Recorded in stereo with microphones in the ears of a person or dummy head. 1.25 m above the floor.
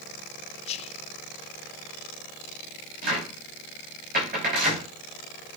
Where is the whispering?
30° left (ahead or behind), 0.7 m.